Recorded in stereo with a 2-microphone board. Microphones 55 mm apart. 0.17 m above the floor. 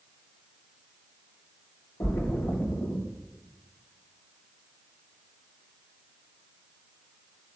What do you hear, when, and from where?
2.0 s a splash: 80° left, 5 m